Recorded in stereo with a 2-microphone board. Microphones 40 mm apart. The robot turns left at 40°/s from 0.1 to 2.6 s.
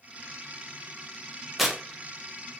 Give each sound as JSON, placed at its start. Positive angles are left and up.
{"t": 1.6, "sound": "tearing paper", "side_deg": -5, "distance_m": 0.6}